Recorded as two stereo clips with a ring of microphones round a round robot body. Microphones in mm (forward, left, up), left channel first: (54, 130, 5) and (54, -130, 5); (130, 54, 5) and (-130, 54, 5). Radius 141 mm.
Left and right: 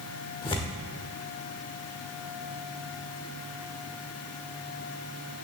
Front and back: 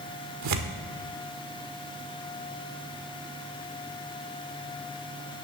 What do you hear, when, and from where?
0.4 s tearing paper: 165° left, 1.0 m